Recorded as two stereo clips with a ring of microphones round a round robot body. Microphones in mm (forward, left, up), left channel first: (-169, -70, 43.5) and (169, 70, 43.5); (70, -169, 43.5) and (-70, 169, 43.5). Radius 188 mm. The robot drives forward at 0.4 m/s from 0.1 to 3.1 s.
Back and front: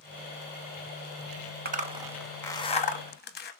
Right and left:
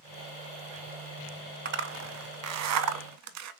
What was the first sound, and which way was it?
A zipper, 70° left.